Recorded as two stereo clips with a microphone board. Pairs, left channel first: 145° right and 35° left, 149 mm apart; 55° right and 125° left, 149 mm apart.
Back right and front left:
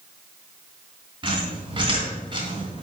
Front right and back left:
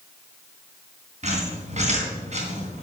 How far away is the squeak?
About 3 m.